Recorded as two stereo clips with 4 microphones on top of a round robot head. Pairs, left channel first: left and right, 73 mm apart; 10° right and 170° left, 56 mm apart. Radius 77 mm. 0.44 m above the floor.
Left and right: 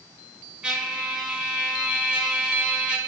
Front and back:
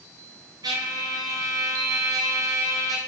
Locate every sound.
0.6 s a trumpet: 165° right, 0.7 m